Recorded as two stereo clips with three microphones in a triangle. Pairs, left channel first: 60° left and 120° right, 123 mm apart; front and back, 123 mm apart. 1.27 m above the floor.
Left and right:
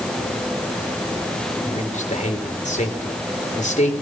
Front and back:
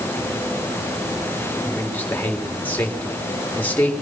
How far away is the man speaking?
About 3.5 m.